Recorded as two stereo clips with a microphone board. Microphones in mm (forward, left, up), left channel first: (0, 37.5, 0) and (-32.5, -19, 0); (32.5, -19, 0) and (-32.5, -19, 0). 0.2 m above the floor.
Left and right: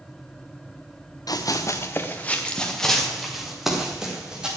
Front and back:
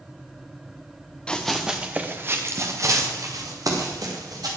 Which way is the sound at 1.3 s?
80° left.